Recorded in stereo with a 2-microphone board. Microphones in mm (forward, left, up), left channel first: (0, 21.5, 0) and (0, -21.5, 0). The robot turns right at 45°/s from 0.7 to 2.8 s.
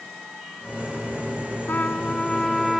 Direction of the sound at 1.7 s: 130° left.